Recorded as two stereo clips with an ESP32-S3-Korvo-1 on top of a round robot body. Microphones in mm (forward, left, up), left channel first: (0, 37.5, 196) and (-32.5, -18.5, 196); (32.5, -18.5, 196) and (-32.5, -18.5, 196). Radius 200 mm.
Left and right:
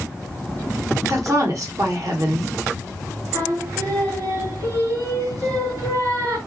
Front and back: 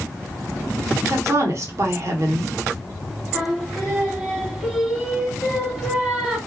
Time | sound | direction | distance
1.1 | a woman speaking | 145° right | 1.1 m
3.3 | singing | 90° right | 1.8 m